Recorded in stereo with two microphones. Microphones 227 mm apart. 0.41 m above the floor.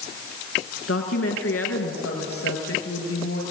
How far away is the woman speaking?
About 4 m.